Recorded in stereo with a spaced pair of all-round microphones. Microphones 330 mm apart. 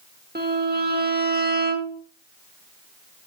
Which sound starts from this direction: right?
A violin, at 0.3 s.